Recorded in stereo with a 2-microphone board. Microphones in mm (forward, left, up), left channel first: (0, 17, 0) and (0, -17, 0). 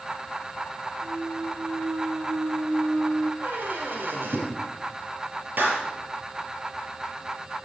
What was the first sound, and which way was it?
A clunk, 45° right (ahead or behind).